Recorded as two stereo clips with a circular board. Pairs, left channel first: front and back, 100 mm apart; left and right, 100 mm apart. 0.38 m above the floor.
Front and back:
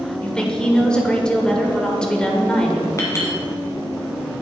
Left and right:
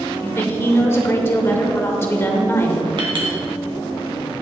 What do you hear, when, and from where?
0.2 s a woman speaking: 70° left, 1.2 m
3.0 s a clink: 60° right, 1.9 m